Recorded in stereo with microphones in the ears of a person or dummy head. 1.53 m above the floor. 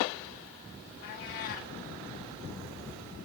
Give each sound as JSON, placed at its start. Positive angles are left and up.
{"t": 1.0, "sound": "a cat meowing", "side_deg": 45, "distance_m": 1.4}